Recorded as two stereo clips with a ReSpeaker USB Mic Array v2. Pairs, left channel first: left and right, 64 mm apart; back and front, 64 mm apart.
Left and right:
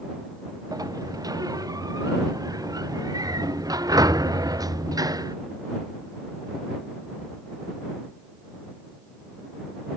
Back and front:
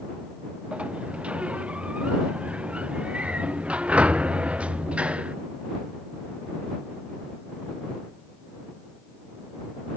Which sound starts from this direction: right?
A sliding door, at 0.7 s.